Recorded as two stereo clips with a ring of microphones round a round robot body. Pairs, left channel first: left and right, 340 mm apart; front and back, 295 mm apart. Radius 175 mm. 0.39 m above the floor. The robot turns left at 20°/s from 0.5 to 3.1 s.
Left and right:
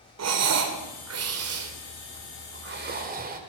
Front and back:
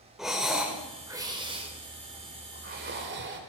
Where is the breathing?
90° right, 1.9 m; by 3.4 s 145° right, 1.9 m.